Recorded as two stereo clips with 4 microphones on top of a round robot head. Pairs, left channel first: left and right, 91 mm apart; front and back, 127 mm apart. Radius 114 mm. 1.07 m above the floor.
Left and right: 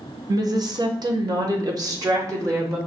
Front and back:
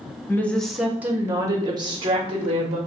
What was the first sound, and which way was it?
A woman speaking, 70° right.